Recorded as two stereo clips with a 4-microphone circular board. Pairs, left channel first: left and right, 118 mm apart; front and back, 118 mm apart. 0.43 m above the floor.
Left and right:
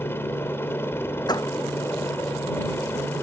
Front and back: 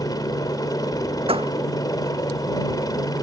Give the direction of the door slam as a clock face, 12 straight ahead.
7 o'clock.